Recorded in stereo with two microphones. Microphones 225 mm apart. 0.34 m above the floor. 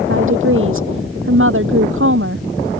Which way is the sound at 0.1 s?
65° right (ahead or behind).